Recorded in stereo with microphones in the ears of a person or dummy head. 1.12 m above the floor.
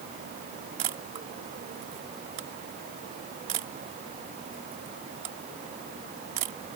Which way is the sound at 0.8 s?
30° right (ahead or behind).